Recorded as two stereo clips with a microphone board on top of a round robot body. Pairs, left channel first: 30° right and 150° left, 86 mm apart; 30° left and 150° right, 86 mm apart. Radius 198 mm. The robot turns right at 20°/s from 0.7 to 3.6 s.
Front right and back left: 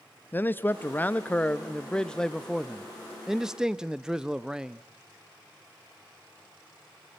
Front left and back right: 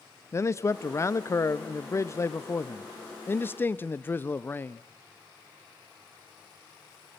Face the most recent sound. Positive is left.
turn(degrees=75)